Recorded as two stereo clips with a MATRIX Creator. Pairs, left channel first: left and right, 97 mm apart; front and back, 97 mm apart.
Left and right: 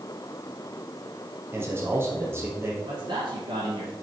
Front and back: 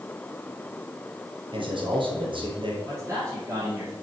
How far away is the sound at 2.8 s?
About 4 m.